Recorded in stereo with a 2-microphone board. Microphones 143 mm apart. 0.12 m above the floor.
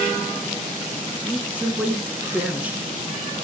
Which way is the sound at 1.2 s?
10° right (ahead or behind).